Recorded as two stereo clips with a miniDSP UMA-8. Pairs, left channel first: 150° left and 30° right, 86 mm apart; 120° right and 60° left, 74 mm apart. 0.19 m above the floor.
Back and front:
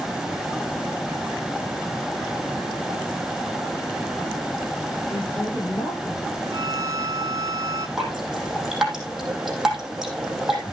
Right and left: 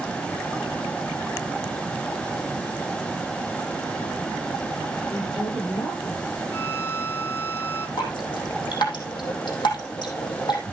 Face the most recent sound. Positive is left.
turn(degrees=-115)